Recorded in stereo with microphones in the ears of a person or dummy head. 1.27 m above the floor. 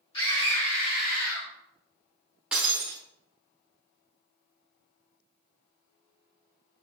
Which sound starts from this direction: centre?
Breaking glass, at 2.5 s.